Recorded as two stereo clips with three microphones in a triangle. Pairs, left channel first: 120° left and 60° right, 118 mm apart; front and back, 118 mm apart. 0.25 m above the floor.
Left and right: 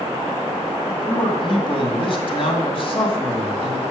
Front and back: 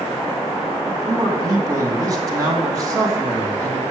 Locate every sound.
0.9 s a man speaking: 130° left, 2 m